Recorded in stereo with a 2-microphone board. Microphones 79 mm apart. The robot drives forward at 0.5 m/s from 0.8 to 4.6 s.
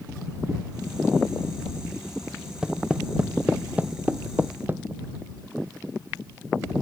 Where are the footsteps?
10° right (ahead or behind); by 4.8 s 30° right (ahead or behind).